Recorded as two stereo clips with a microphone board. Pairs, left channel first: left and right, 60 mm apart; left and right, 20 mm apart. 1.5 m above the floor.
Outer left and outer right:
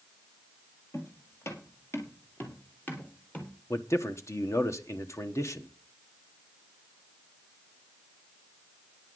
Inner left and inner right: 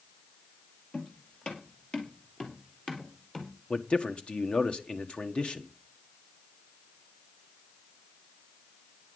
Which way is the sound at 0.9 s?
55° left (ahead or behind).